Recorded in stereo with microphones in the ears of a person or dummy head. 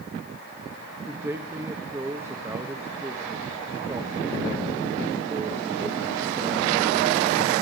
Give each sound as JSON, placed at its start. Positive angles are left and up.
{"t": 1.1, "sound": "a man speaking", "side_deg": -20, "distance_m": 1.2}